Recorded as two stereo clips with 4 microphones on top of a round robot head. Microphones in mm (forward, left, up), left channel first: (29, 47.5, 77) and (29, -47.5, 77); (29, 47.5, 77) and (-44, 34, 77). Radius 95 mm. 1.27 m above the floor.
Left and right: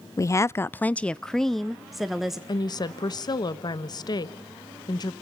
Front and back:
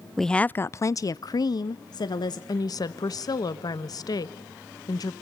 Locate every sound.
0.2 s a woman speaking: 100° left, 0.5 m; by 2.4 s 5° right, 1.3 m
2.5 s a woman speaking: 45° left, 1.2 m